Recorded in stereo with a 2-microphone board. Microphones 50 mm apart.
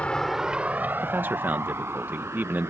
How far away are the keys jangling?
I don't hear keys jangling.